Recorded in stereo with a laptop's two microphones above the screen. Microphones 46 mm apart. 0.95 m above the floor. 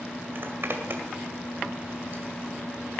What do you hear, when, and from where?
0.3 s a zipper: 55° right (ahead or behind), 1.9 m